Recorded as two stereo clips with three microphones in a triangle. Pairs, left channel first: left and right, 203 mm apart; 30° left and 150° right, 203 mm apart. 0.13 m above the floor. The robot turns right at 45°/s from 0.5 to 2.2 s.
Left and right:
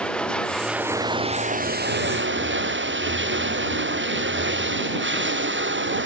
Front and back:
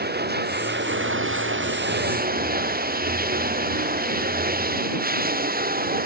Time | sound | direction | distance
0.0 | running water | 175° left | ?